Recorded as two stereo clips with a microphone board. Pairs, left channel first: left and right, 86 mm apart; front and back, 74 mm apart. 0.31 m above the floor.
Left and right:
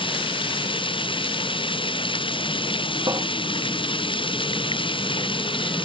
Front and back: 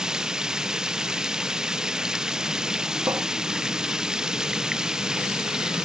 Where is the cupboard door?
130° right.